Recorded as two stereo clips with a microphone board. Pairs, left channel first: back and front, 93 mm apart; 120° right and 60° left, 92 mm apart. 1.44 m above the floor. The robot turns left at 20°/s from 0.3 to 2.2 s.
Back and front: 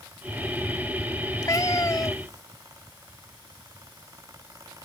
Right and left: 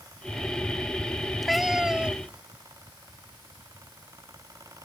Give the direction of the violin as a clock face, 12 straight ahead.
No violin in this recording.